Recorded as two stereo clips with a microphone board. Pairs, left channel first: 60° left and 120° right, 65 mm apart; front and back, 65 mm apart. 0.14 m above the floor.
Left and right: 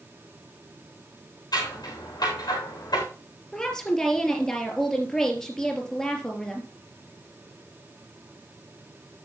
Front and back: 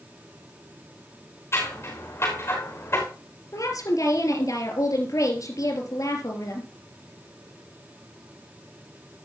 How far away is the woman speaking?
About 3 m.